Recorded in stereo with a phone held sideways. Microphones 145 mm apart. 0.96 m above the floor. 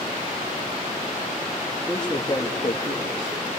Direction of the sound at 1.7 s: 5° right (ahead or behind).